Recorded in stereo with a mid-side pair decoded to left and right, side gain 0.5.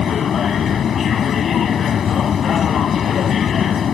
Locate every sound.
0.0 s a machine running: 50° left